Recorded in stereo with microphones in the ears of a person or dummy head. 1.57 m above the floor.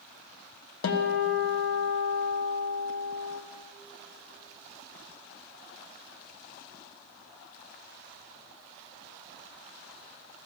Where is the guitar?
85° left, 1.3 m.